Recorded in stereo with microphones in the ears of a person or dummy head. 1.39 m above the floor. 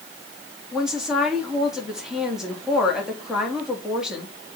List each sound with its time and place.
0.7 s a woman speaking: 5° right (ahead or behind), 3 m